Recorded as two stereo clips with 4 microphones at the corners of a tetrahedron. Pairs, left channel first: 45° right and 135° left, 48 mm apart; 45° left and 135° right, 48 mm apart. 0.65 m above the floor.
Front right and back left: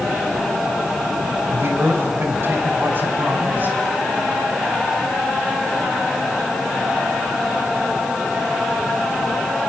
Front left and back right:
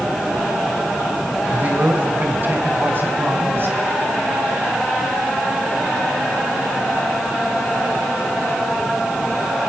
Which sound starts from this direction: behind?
A man speaking, at 1.5 s.